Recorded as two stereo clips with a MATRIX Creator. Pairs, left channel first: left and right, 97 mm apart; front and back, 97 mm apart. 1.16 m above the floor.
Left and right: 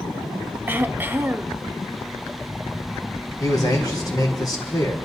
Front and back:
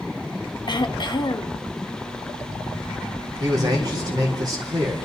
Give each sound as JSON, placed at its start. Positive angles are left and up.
{"t": 0.7, "sound": "throat clearing", "azimuth_deg": -25, "distance_m": 0.6}
{"t": 3.4, "sound": "a man speaking", "azimuth_deg": 135, "distance_m": 3.5}